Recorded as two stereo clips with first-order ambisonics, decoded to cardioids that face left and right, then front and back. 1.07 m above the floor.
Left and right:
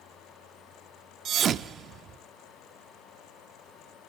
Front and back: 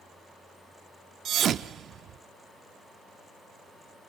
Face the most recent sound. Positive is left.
turn(degrees=-135)